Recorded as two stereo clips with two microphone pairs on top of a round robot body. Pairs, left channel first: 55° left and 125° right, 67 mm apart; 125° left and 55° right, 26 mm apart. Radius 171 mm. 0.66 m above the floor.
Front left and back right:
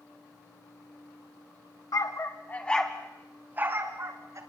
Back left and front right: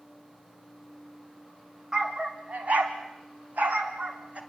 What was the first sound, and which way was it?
A dog barking, 15° left.